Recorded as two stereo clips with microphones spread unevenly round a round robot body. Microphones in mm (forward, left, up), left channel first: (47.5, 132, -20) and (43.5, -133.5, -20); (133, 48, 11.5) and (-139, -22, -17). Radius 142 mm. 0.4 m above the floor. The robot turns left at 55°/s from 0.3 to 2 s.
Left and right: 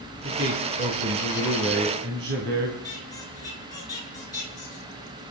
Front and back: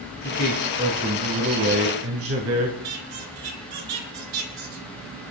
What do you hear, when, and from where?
0.2 s a man speaking: 40° right, 2.5 m; by 2.7 s 130° right, 2.5 m
2.8 s a squeak: 165° left, 3.5 m